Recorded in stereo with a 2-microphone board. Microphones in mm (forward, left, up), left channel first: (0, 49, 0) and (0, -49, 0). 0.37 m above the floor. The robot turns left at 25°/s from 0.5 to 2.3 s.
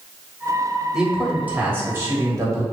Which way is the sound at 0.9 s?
10° right.